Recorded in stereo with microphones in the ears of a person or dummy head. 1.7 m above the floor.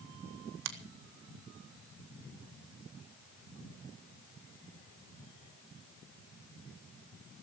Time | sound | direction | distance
0.7 | a finger snap | 60° right (ahead or behind) | 1.8 m